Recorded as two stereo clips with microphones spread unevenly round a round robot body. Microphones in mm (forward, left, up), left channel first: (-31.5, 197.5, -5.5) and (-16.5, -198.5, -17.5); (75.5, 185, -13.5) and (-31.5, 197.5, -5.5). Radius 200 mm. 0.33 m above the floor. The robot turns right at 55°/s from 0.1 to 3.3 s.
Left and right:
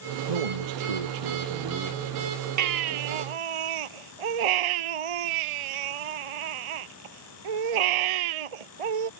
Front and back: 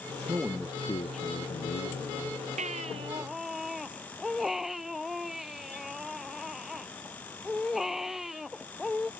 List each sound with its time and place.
0.3 s a man speaking: 110° right; by 2.4 s 10° left
2.6 s a baby crying: 135° right; by 9.1 s 100° right